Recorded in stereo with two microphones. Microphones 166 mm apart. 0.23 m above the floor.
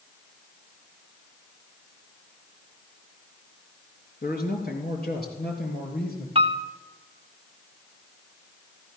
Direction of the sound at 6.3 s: 35° right (ahead or behind).